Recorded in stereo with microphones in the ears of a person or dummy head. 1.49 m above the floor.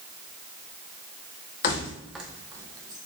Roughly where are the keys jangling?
Left.